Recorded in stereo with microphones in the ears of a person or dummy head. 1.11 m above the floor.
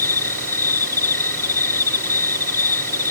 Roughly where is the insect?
Centre.